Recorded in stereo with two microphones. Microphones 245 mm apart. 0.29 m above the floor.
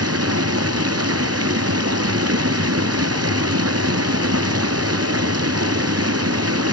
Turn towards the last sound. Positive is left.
turn(degrees=-75)  # may be behind; listen again after turning